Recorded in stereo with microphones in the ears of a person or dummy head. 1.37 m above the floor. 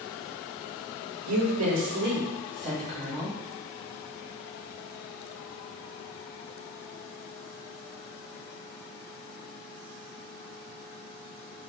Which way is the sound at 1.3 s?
85° right.